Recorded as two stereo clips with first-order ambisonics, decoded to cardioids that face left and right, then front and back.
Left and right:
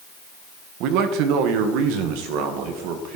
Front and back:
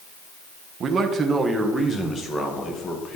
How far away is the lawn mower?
I don't hear a lawn mower.